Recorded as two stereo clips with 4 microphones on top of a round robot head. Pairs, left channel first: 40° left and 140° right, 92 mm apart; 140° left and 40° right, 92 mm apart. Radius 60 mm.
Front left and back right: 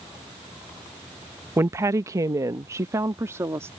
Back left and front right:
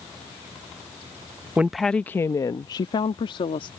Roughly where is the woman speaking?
Right.